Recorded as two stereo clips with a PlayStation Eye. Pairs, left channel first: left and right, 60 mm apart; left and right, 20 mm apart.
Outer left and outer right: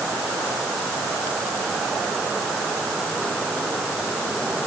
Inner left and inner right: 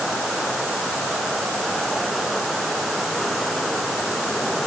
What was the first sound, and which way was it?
Only background noise.